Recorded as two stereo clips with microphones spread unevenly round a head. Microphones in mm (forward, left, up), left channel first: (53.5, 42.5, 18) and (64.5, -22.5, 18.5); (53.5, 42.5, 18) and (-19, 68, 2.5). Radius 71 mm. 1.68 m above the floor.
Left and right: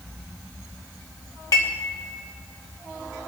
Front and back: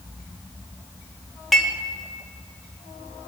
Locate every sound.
1.5 s dishes clattering: 65° left, 2 m